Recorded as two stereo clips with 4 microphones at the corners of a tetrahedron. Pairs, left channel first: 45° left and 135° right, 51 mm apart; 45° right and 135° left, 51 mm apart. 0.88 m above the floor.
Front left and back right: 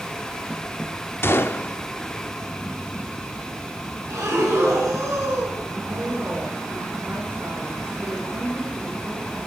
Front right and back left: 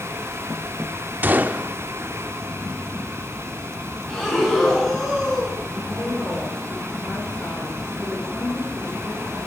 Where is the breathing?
130° right, 6.5 m.